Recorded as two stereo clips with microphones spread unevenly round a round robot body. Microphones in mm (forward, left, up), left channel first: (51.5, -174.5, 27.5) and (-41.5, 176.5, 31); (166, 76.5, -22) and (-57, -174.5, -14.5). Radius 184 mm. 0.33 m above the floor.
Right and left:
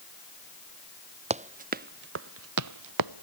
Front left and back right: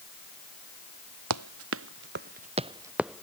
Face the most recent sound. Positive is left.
turn(degrees=135)